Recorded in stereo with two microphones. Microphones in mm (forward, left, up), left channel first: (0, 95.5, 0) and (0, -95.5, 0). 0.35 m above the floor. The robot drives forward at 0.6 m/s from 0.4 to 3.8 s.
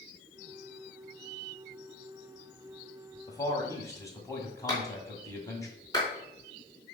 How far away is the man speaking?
About 1.9 m.